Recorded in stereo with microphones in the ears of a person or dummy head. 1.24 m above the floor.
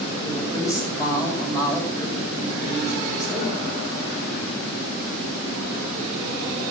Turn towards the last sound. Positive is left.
turn(degrees=20)  # may be behind; listen again after turning